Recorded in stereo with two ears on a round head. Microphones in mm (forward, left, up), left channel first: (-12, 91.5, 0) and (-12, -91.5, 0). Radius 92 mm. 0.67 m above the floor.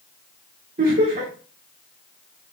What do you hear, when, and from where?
0.8 s laughter: 45° right (ahead or behind), 1.2 m